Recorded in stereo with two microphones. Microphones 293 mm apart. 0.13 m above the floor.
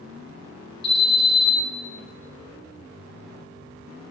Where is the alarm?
30° left (ahead or behind), 2 m.